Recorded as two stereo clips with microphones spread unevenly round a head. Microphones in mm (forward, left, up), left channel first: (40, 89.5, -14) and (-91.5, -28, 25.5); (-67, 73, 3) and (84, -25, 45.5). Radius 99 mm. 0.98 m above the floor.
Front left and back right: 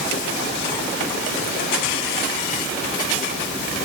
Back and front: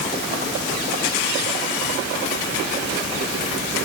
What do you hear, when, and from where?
Only background noise.